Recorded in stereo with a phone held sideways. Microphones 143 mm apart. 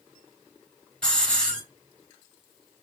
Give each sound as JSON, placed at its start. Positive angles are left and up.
{"t": 1.0, "sound": "a hiss", "side_deg": 5, "distance_m": 3.0}